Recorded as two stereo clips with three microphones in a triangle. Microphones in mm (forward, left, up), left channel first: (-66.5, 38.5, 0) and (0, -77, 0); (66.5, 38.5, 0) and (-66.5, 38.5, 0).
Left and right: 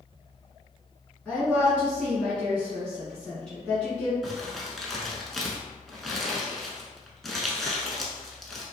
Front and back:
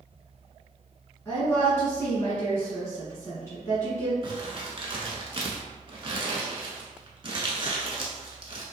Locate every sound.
1.2 s a woman speaking: 50° left, 1.2 m
4.2 s crumpling: 150° right, 0.6 m